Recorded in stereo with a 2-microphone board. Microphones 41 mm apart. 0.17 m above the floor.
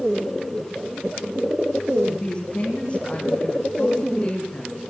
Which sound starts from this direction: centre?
A woman speaking, at 2.1 s.